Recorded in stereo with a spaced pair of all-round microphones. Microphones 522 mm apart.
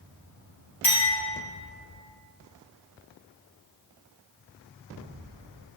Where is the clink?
80° left, 1.6 m.